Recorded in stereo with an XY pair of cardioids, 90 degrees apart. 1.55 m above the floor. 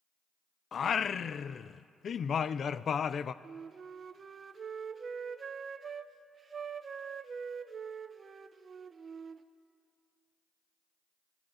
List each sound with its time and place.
0.7 s singing: 55° left, 0.6 m
3.4 s a flute: 45° right, 1.0 m